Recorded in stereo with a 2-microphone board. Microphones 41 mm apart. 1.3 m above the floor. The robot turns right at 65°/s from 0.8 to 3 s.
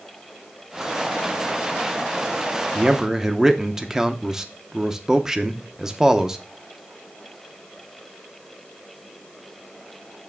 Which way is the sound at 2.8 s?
30° right (ahead or behind).